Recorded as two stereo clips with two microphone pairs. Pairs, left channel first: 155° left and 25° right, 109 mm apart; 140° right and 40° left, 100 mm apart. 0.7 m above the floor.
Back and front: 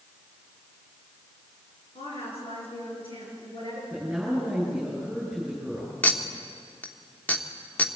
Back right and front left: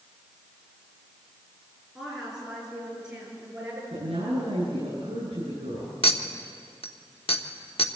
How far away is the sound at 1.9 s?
About 8.5 m.